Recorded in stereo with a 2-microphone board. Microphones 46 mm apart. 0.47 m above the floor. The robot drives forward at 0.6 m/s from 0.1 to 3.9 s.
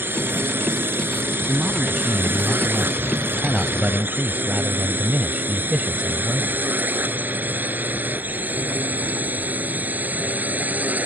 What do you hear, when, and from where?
0.0 s a drone: 50° right (ahead or behind); by 11.1 s 35° right (ahead or behind)
1.5 s a man speaking: 15° right (ahead or behind); by 6.6 s 20° right (ahead or behind)